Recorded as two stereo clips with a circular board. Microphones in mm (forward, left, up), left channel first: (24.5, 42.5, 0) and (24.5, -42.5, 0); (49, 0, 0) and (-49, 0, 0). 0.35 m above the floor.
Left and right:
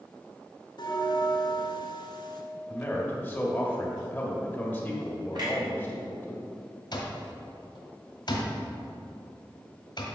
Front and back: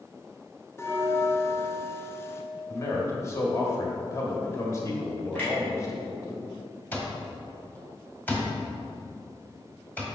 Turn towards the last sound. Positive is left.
turn(degrees=70)